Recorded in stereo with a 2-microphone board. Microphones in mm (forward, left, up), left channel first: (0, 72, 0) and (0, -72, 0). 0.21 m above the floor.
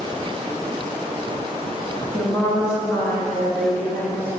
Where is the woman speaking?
20° left (ahead or behind), 1.8 m; by 4.4 s 10° left (ahead or behind), 3 m.